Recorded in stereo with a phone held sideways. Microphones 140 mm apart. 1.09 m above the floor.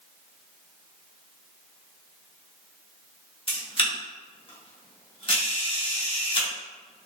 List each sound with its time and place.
3.5 s a camera shutter: 40° left (ahead or behind), 1.2 m